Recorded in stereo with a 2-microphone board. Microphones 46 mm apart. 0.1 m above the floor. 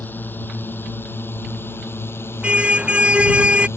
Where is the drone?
45° left (ahead or behind); by 3.8 s 65° left (ahead or behind).